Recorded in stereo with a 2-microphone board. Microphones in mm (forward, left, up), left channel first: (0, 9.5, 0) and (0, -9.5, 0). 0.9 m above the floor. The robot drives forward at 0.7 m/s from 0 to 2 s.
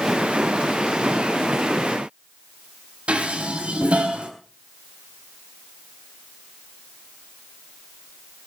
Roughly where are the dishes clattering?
Right.